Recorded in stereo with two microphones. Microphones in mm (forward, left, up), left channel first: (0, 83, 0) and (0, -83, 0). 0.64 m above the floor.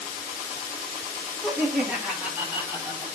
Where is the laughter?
Centre (ahead or behind), 6 m; by 3.0 s 20° right (ahead or behind), 5 m.